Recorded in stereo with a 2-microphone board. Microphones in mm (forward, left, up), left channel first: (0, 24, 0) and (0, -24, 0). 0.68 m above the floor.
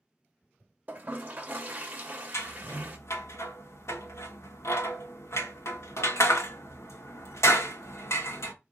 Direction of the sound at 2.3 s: 65° left (ahead or behind).